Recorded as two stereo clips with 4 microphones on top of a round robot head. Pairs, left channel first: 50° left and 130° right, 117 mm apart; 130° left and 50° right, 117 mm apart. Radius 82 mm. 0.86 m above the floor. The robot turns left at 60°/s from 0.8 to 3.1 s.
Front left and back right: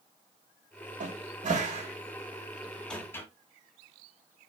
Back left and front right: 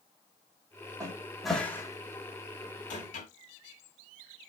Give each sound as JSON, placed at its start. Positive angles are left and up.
{"t": 1.0, "sound": "a cupboard door", "azimuth_deg": -110, "distance_m": 1.5}